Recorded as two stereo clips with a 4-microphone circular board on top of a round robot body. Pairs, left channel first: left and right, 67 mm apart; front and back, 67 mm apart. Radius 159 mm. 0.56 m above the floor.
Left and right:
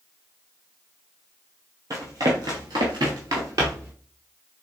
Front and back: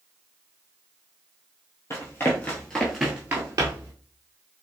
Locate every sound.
1.9 s running footsteps: 50° right, 1.3 m; by 3.9 s 145° right, 1.0 m